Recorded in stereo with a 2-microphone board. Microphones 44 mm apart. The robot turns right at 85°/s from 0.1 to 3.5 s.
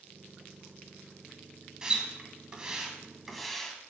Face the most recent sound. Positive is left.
turn(degrees=5)  # may be behind; listen again after turning